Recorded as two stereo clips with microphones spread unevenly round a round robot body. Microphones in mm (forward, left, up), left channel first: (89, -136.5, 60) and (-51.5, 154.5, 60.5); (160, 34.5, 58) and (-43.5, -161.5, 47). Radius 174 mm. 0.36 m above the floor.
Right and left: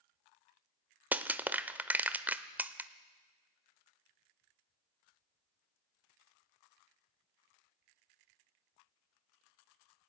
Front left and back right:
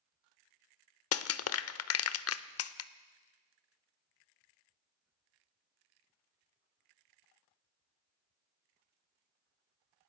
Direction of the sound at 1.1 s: 30° left.